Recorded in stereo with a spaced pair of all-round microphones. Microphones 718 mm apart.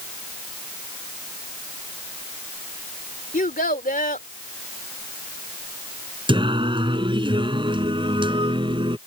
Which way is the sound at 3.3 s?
10° left (ahead or behind).